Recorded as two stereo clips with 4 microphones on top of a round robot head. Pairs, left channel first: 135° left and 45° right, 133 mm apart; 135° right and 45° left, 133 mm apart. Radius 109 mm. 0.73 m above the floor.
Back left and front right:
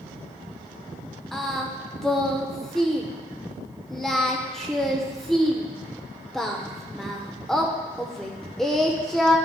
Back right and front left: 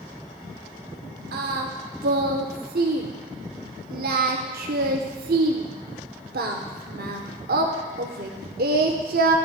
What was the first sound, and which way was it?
Singing, 50° left.